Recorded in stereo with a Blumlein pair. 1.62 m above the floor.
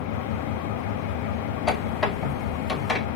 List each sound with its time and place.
0.0 s an engine running: 45° left, 1.0 m
1.7 s a squeak: 20° left, 2.5 m